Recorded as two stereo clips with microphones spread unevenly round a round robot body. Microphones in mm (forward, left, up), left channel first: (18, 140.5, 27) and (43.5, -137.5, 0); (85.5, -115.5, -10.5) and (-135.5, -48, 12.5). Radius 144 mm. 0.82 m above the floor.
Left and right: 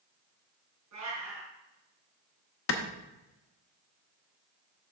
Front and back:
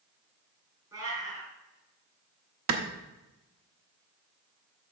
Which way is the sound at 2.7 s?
140° left.